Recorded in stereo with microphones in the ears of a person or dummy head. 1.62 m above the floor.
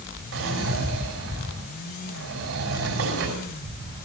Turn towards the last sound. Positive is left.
turn(degrees=-80)